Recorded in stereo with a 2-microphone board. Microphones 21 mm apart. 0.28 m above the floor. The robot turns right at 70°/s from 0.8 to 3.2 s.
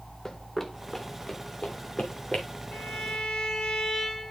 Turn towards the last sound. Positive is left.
turn(degrees=130)